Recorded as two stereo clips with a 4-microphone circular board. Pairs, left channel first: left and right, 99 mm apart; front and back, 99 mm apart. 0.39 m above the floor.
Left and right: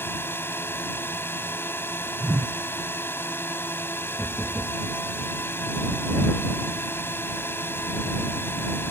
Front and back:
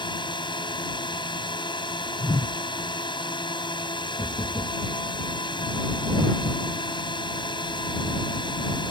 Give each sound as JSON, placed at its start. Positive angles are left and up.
{"t": 0.0, "sound": "a drone", "azimuth_deg": 25}
{"t": 2.2, "sound": "a whoosh", "azimuth_deg": -25}
{"t": 4.2, "sound": "knocking", "azimuth_deg": -5}